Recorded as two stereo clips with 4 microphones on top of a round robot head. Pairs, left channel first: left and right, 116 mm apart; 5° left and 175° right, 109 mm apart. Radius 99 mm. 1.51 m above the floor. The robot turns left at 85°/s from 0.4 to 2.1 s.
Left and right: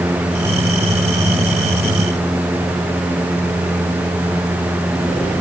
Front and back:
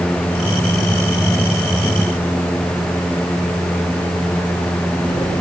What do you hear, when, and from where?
Only background noise.